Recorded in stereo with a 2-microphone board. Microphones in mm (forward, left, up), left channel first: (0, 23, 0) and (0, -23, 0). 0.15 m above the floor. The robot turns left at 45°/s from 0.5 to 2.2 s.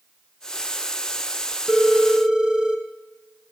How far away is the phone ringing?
About 1.1 m.